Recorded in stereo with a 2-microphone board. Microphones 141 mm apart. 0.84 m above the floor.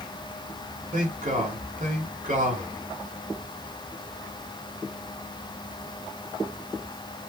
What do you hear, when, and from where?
0.9 s a man speaking: 65° right (ahead or behind), 2.5 m